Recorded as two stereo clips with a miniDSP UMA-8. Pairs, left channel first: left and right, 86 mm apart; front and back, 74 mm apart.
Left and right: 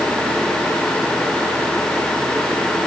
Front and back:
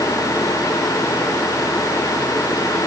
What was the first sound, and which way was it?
Only background noise.